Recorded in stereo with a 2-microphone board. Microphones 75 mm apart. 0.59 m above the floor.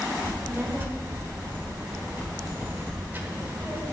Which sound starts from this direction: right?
A child speaking, at 0.2 s.